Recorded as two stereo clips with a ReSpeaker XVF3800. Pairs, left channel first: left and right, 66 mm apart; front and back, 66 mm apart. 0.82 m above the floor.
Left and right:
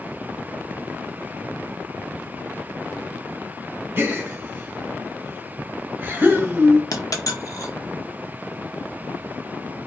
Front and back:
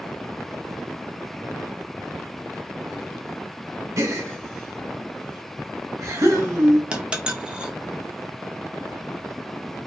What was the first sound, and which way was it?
A gasp, 140° right.